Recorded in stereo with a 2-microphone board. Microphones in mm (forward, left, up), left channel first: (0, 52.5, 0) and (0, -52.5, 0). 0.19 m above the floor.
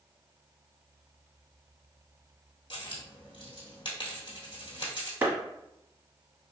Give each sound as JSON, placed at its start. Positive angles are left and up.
{"t": 2.7, "sound": "a dropped coin", "side_deg": 50, "distance_m": 1.2}
{"t": 5.2, "sound": "a clap", "side_deg": -25, "distance_m": 1.1}